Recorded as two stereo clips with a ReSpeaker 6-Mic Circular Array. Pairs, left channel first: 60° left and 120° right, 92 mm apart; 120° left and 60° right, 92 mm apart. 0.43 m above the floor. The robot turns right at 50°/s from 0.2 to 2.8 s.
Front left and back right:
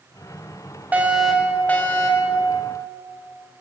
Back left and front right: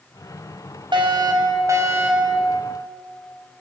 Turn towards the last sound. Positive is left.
turn(degrees=45)